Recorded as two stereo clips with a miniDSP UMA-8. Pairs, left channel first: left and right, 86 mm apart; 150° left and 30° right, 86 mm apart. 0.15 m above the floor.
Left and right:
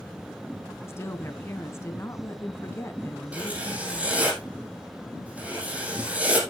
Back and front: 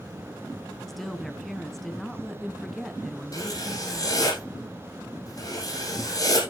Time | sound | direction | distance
0.9 | a woman speaking | 65° left | 1.5 m
3.3 | writing | 165° right | 5 m